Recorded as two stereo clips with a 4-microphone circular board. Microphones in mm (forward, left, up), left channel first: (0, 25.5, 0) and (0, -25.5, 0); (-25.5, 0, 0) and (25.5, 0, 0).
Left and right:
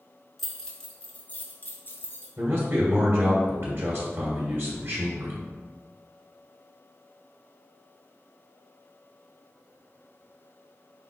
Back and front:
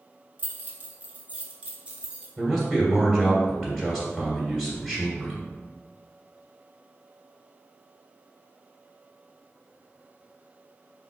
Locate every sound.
0.4 s keys jangling: 10° left, 0.9 m; by 2.3 s 65° left, 1.3 m
2.4 s a man speaking: 95° right, 1.7 m